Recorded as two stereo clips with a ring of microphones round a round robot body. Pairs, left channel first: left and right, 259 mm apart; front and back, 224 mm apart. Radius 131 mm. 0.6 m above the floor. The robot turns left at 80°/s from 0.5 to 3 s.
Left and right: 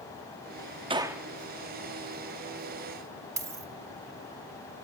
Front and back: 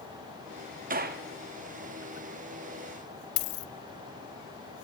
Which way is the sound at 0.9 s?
150° right.